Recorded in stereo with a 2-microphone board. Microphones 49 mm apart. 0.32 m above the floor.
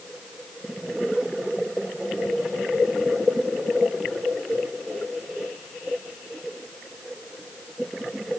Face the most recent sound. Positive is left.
No sound to turn to.